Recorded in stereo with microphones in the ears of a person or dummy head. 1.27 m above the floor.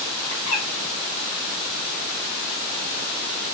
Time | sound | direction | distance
0.3 | a bird | 85° left | 1.2 m